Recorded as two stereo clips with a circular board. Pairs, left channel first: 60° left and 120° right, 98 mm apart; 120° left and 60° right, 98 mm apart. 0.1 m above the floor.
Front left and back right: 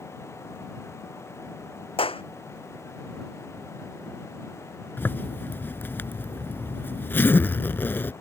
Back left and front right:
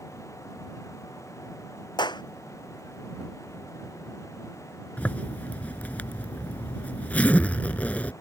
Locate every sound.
2.0 s a clap: 80° left
5.0 s a zipper: 75° left